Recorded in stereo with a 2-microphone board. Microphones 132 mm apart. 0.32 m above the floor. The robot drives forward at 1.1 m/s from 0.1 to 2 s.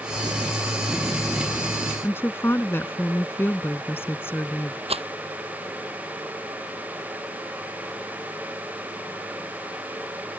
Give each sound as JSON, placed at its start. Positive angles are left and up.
{"t": 2.0, "sound": "a woman speaking", "side_deg": 15}
{"t": 4.9, "sound": "a rattle", "side_deg": -45}